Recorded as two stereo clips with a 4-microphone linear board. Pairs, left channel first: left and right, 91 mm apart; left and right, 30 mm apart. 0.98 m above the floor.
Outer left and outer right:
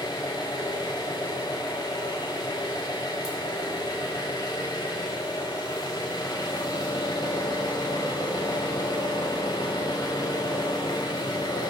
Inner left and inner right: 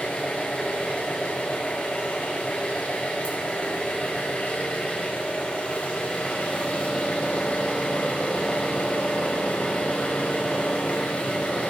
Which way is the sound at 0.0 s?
45° left (ahead or behind).